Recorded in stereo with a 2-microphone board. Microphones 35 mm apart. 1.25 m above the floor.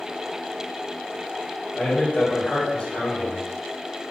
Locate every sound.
1.8 s a man speaking: 40° left (ahead or behind), 1.2 m